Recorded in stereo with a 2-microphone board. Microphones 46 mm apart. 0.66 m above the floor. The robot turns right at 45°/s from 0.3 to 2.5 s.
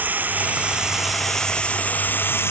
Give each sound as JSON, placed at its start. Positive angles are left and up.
{"t": 0.0, "sound": "running water", "azimuth_deg": -40}